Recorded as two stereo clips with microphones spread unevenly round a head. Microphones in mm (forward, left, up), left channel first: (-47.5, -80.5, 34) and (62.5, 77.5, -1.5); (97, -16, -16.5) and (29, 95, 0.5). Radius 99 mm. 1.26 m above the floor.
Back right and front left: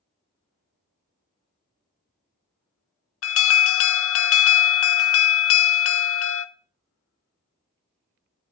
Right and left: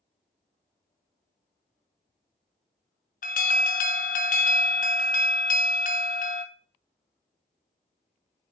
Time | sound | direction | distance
3.2 | an alarm | 105° right | 0.8 m